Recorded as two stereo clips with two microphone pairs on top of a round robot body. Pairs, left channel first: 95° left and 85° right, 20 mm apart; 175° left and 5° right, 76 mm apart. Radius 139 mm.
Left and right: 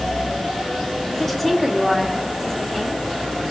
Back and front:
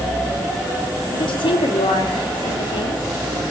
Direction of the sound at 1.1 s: Straight behind.